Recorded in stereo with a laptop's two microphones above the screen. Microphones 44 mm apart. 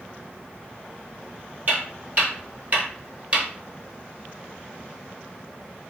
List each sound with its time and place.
1.7 s footsteps: 35° right (ahead or behind), 1.8 m; by 3.5 s 25° right (ahead or behind), 1.1 m